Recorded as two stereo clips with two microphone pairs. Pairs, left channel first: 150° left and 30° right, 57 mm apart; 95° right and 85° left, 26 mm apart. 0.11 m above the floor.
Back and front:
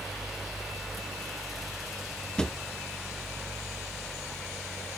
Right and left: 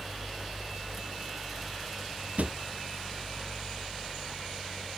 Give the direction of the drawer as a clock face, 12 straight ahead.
9 o'clock.